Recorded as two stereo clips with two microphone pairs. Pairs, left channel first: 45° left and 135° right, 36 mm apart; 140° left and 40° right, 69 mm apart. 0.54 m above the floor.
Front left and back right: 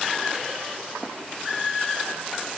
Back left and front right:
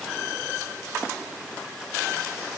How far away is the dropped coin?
I don't hear a dropped coin.